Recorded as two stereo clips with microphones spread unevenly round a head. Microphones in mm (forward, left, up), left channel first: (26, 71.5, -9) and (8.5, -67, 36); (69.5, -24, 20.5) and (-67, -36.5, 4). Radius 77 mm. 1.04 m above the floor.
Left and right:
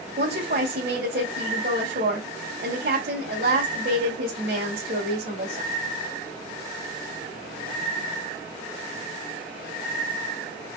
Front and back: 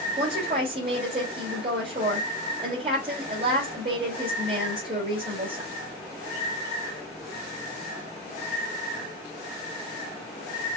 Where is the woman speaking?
125° right, 4 m.